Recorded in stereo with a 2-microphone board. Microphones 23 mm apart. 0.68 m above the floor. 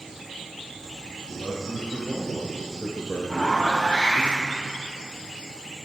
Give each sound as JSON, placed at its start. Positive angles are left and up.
{"t": 1.3, "sound": "a man speaking", "side_deg": 55, "distance_m": 3.0}
{"t": 3.3, "sound": "a zipper", "side_deg": 75, "distance_m": 3.5}